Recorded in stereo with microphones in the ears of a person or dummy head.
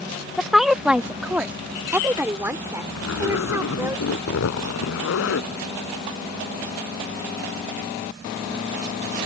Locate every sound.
0.4 s a woman speaking: centre (ahead or behind); by 4.0 s 15° right (ahead or behind)
3.0 s a zipper: 85° left